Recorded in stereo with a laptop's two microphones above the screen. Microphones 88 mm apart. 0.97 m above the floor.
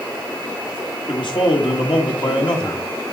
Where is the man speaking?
60° left (ahead or behind), 1.8 m.